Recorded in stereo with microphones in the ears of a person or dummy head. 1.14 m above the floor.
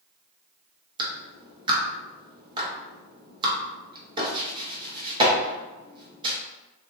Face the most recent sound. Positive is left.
turn(degrees=-25)  # may be behind; listen again after turning